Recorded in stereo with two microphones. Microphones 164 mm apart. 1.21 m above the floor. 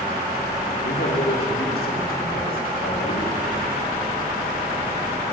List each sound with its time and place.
0.8 s a man speaking: 80° left, 3 m; by 3.4 s 65° left (ahead or behind), 6.5 m